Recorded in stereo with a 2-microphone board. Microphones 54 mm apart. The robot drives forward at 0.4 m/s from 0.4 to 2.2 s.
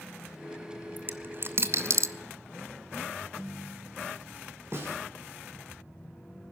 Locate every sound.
1.0 s a dropped coin: 35° right (ahead or behind), 0.8 m; by 2.1 s 70° right (ahead or behind), 0.5 m
3.2 s a ringtone: 45° right (ahead or behind), 10 m
4.7 s a snare drum: 55° right (ahead or behind), 3.5 m